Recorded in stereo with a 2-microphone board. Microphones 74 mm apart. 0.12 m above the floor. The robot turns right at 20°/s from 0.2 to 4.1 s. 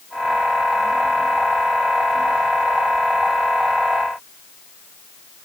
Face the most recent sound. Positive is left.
No sound to turn to.